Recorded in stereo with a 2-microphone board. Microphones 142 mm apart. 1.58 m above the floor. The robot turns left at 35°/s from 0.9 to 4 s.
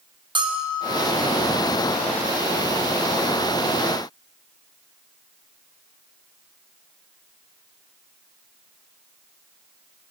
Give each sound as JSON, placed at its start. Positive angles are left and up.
{"t": 0.3, "sound": "a bell", "side_deg": -35, "distance_m": 0.8}